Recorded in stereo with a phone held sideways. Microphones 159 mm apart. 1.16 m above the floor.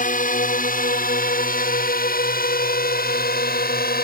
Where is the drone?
60° left (ahead or behind); by 4.0 s 70° left (ahead or behind).